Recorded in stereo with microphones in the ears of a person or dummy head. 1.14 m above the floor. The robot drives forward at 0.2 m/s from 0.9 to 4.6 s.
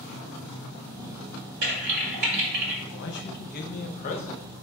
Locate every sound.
1.6 s typing on a keyboard: 60° right (ahead or behind), 1.4 m
2.9 s a man speaking: 65° left (ahead or behind), 0.5 m; by 4.5 s 45° left (ahead or behind), 0.7 m